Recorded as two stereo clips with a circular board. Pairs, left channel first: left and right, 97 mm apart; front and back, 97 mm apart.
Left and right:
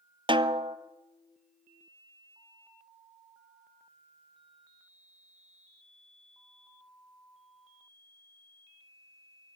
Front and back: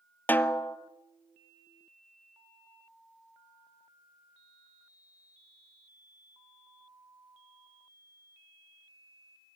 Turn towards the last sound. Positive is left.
turn(degrees=-70)